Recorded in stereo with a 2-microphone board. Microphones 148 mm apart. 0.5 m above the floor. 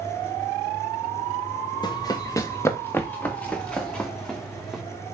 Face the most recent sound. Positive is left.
turn(degrees=0)  # may be behind; listen again after turning